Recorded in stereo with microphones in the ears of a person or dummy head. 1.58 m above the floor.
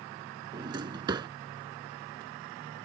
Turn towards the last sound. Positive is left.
turn(degrees=-25)  # may be behind; listen again after turning